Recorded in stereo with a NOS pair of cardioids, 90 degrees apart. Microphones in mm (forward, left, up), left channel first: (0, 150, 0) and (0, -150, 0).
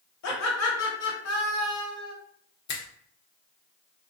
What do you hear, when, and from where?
0.2 s laughter: 65° left, 1.2 m
2.7 s a finger snap: 65° left, 0.8 m